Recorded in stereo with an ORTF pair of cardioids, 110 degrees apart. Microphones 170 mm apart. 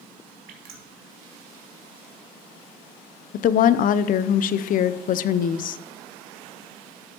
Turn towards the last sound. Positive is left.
turn(degrees=55)